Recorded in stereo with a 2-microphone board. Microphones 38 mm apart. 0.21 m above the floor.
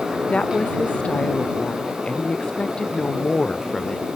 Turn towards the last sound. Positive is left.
turn(degrees=20)  # may be behind; listen again after turning